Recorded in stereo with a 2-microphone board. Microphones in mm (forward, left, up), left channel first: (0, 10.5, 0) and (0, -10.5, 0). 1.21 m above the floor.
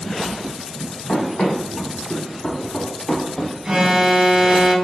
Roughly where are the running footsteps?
Left.